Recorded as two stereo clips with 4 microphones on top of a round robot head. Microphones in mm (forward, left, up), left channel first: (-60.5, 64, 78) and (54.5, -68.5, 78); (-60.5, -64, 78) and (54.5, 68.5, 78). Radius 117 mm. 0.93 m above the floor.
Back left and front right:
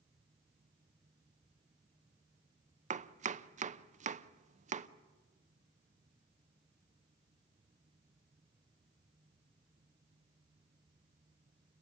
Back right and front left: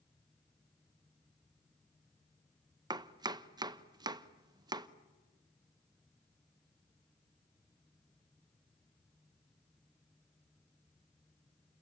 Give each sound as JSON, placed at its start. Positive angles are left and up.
{"t": 2.9, "sound": "chopping", "azimuth_deg": -15, "distance_m": 0.9}